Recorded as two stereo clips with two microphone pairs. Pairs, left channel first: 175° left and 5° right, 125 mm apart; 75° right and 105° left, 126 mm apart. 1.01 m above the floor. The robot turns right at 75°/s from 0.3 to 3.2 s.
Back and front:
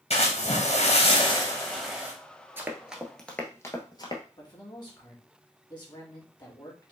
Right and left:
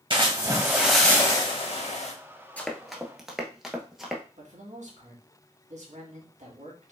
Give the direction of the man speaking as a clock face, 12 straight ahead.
8 o'clock.